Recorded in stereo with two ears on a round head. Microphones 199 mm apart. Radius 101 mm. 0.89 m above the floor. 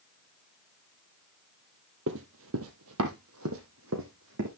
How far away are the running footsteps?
About 1.7 m.